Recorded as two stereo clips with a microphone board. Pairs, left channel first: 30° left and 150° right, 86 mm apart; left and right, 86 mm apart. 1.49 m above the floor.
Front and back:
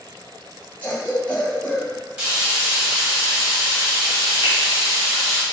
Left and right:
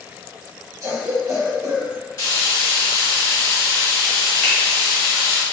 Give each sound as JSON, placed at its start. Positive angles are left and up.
{"t": 0.8, "sound": "a cough", "azimuth_deg": -40, "distance_m": 1.6}
{"t": 2.2, "sound": "frying", "azimuth_deg": 135, "distance_m": 1.5}
{"t": 4.4, "sound": "a finger snap", "azimuth_deg": 10, "distance_m": 1.6}